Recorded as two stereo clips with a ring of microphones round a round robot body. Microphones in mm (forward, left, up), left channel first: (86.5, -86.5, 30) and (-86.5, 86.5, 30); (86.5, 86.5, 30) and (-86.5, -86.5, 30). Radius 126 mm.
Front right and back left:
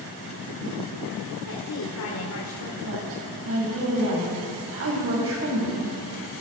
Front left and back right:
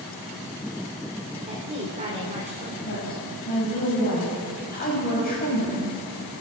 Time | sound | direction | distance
1.5 | a woman speaking | 75° right | 2.5 m
2.9 | a woman speaking | 100° left | 6 m